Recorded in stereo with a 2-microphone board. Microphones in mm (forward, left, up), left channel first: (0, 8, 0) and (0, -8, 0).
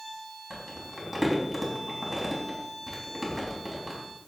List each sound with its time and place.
0.5 s crumpling: centre (ahead or behind), 4 m